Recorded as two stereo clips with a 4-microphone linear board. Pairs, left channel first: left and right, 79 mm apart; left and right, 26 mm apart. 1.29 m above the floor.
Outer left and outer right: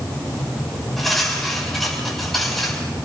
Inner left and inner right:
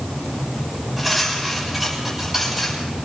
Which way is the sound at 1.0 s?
Centre (ahead or behind).